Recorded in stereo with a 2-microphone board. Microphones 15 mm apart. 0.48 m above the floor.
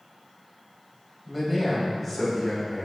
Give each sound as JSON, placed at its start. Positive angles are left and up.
{"t": 1.3, "sound": "a man speaking", "side_deg": 10, "distance_m": 2.0}